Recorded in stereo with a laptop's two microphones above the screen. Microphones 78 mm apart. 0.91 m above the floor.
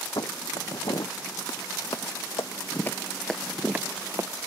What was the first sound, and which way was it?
Footsteps, 65° left (ahead or behind).